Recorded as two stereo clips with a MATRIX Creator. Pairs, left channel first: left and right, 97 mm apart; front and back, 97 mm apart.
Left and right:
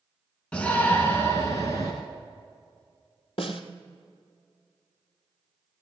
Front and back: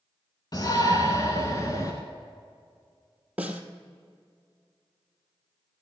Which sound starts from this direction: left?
A snare drum, at 3.4 s.